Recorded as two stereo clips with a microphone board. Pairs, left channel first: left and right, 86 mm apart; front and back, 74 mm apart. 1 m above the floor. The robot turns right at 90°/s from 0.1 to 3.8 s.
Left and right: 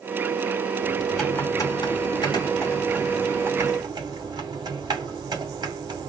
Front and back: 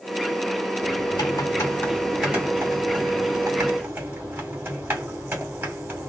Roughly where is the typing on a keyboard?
Ahead right.